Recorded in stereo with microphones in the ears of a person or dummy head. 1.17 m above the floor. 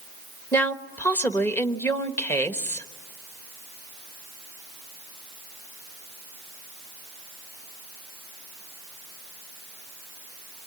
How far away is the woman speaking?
About 1.3 m.